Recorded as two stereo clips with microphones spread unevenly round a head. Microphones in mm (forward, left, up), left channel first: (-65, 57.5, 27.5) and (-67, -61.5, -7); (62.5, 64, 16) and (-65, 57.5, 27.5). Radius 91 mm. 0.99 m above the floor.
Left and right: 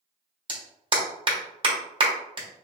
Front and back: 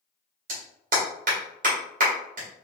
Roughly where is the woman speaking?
I don't hear a woman speaking.